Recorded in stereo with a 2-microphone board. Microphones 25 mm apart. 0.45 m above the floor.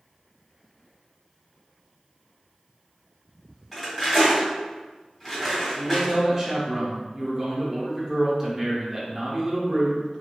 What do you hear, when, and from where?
3.7 s cutlery clinking: 15° left (ahead or behind), 1.5 m
5.8 s a man speaking: 20° right (ahead or behind), 0.8 m